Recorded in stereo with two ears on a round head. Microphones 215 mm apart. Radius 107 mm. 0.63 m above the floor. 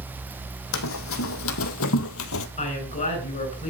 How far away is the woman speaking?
About 7.5 m.